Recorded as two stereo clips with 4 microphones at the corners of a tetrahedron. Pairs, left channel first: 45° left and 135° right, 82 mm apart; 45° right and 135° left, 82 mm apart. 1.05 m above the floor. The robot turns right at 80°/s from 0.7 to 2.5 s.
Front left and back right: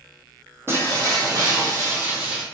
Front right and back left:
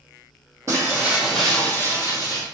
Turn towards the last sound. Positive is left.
turn(degrees=-40)